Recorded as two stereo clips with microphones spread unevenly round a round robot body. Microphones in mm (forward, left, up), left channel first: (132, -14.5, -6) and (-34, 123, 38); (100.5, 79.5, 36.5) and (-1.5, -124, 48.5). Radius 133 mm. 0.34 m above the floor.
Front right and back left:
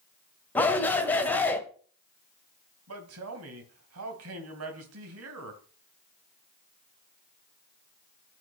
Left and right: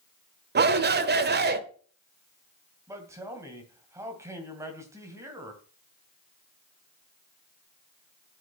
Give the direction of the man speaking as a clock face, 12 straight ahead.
7 o'clock.